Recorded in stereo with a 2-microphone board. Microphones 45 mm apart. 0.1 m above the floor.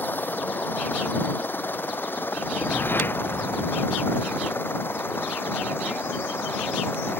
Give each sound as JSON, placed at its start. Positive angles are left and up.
{"t": 0.0, "sound": "a helicopter", "side_deg": 45}
{"t": 2.4, "sound": "a whoosh", "side_deg": 55}